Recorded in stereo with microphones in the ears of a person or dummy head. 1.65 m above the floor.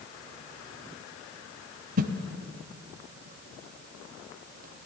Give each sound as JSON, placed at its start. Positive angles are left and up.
{"t": 2.0, "sound": "a whoosh", "side_deg": -45, "distance_m": 0.7}